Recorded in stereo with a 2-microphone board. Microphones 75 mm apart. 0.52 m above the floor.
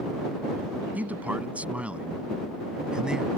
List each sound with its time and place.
0.9 s a man speaking: 20° right (ahead or behind); by 3.3 s 10° right (ahead or behind)